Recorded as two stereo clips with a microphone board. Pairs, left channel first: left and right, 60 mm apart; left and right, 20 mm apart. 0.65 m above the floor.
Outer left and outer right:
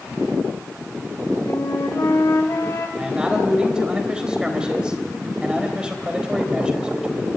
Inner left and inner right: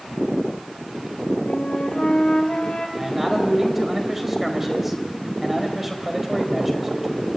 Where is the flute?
65° left (ahead or behind), 3 m.